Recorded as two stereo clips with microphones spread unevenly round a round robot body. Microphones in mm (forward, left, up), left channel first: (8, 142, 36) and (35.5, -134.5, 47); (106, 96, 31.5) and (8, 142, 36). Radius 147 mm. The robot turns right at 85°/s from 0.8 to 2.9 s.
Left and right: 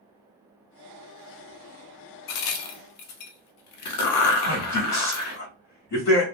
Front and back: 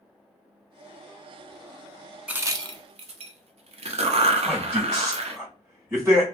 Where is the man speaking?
90° left, 1.8 m.